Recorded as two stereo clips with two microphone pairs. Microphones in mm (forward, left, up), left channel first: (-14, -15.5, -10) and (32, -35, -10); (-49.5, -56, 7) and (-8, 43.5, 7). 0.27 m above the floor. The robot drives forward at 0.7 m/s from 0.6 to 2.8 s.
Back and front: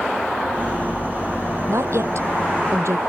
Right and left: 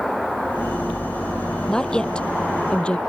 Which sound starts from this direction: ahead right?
A woman speaking, at 1.7 s.